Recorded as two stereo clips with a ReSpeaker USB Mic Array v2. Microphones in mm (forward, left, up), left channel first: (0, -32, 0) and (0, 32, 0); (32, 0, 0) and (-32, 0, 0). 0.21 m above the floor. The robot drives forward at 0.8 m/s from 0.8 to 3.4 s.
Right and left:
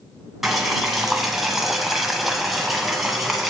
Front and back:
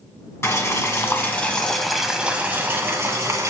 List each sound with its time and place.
0.4 s boiling: 5° left, 1.3 m; by 3.5 s 175° left, 1.5 m